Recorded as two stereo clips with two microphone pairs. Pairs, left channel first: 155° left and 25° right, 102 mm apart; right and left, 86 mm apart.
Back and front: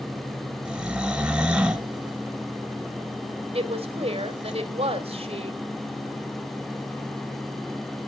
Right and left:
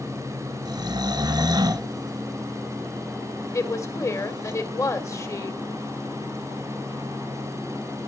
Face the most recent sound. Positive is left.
turn(degrees=-40)